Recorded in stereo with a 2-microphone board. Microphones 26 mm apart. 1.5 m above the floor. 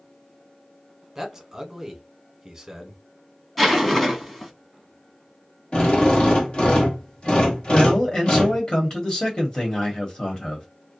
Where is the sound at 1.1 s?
10° right (ahead or behind), 1.1 m.